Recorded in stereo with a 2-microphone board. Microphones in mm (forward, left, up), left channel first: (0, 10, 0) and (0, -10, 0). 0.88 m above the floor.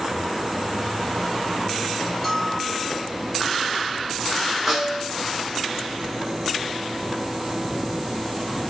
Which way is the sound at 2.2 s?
10° left (ahead or behind).